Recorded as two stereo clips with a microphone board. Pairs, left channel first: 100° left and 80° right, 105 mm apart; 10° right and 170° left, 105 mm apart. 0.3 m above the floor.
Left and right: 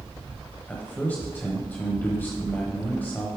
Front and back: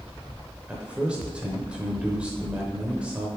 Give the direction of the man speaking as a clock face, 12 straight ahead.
8 o'clock.